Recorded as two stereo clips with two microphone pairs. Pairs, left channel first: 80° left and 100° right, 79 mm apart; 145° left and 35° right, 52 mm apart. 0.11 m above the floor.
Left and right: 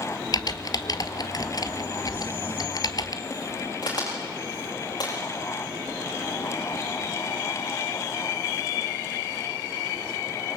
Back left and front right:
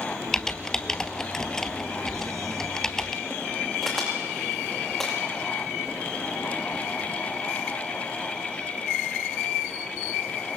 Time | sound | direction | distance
0.3 | typing on a keyboard | 65° left | 0.9 m
2.1 | crumpling | 40° right | 3 m
3.8 | a crack | 55° left | 9 m